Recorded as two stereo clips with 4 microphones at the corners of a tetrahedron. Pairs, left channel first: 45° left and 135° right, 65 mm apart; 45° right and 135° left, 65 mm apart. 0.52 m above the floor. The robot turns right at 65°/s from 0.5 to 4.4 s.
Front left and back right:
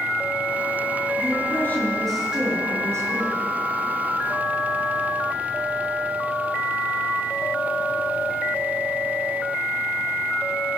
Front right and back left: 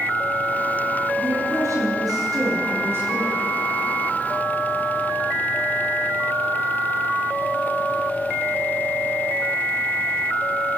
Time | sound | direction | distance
1.2 | a woman speaking | 70° left | 9 m